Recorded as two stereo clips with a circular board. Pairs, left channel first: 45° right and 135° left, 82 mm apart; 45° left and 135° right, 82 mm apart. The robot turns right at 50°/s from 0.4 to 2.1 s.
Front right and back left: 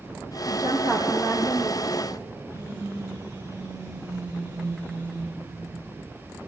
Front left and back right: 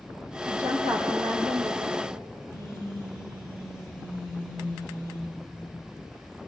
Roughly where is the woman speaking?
Behind.